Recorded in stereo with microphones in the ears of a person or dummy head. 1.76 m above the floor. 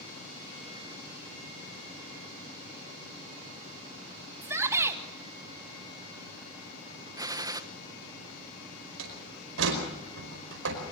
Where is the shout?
15° right (ahead or behind), 2 m.